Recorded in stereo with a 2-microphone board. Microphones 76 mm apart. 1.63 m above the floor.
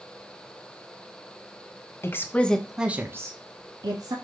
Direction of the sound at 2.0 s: 35° left (ahead or behind).